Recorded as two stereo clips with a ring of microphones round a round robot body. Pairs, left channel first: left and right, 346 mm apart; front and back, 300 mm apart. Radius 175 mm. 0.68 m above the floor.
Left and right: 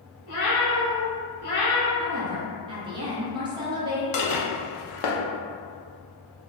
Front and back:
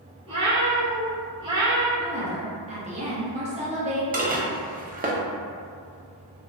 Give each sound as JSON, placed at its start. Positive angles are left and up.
{"t": 0.3, "sound": "a cat meowing", "azimuth_deg": 110, "distance_m": 1.7}
{"t": 2.0, "sound": "a woman speaking", "azimuth_deg": -150, "distance_m": 0.6}
{"t": 4.1, "sound": "dishes clattering", "azimuth_deg": 115, "distance_m": 0.6}